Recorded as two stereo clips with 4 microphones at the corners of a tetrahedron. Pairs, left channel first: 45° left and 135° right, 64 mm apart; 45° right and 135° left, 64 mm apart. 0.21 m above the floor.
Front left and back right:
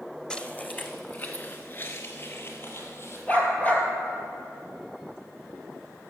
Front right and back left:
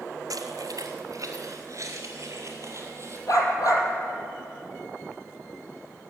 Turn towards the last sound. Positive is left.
turn(degrees=-25)